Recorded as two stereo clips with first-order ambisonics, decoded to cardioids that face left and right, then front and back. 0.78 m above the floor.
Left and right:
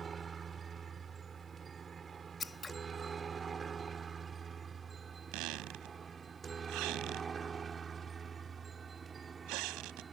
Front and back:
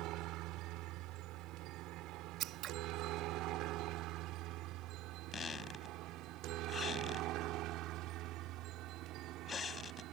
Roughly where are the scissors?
Behind.